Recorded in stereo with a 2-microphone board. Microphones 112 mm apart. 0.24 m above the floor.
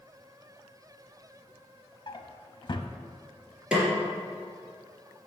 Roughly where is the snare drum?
Centre.